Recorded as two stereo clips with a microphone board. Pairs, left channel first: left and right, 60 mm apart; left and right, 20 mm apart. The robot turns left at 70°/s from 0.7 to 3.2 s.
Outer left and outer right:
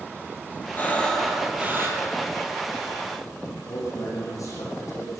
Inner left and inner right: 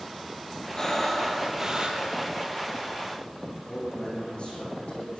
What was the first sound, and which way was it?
Breathing, 35° left.